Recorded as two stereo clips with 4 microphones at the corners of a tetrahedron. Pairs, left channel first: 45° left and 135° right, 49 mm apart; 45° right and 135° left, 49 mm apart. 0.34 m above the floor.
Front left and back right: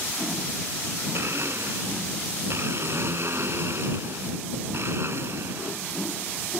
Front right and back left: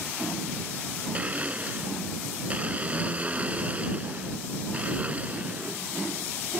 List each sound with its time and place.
1.1 s a blender: 165° right